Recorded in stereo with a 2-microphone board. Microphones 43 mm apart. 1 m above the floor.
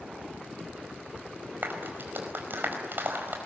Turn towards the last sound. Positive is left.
turn(degrees=-55)  # may be behind; listen again after turning